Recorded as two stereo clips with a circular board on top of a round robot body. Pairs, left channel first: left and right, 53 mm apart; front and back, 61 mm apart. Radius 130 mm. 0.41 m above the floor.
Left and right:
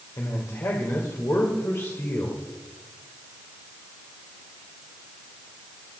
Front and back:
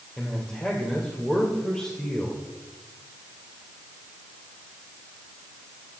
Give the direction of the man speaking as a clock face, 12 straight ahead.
9 o'clock.